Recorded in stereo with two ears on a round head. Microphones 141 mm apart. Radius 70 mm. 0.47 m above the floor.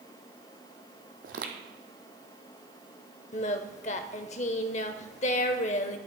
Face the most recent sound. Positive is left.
turn(degrees=45)  # may be behind; listen again after turning